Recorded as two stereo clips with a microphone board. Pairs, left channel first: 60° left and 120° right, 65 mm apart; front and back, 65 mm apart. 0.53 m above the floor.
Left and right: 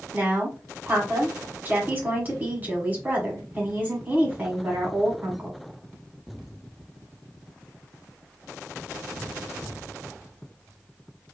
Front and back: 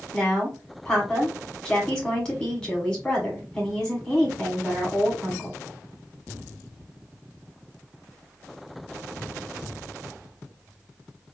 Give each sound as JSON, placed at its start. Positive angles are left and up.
{"t": 0.1, "sound": "a woman speaking", "azimuth_deg": -75, "distance_m": 1.4}